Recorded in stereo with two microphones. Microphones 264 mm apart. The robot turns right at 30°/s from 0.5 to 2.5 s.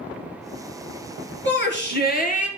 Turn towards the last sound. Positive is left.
turn(degrees=145)